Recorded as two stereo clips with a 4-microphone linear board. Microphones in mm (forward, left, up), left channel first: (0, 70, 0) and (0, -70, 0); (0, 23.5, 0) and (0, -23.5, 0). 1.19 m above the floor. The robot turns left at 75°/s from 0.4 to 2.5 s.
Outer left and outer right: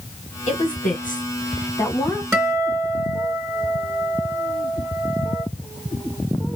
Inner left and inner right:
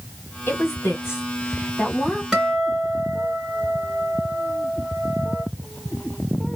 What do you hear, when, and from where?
0.5 s a woman speaking: 55° left (ahead or behind), 1.9 m; by 2.2 s 10° right (ahead or behind), 1.9 m
2.3 s a guitar: 20° right (ahead or behind), 2 m; by 5.5 s 30° right (ahead or behind), 2 m